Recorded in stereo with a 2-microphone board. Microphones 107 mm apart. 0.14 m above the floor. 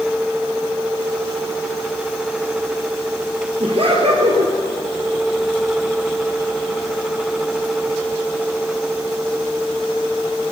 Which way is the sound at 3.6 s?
65° right (ahead or behind).